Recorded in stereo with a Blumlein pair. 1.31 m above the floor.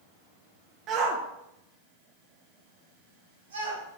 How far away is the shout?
About 0.6 m.